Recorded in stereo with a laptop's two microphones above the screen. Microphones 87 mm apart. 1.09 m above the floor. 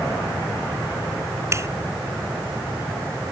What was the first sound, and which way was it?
A finger snap, 30° right (ahead or behind).